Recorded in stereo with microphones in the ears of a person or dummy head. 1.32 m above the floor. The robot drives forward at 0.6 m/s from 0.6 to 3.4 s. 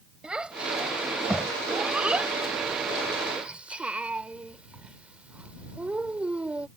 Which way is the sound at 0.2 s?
5° right (ahead or behind).